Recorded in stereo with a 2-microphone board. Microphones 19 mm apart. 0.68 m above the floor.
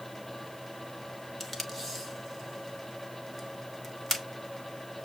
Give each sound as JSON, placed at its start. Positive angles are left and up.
{"t": 1.4, "sound": "tape being pulled", "side_deg": 20, "distance_m": 1.0}